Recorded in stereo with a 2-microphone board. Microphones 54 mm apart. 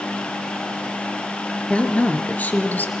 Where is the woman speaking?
25° left (ahead or behind), 2.5 m; by 2.9 s 35° left (ahead or behind), 3 m.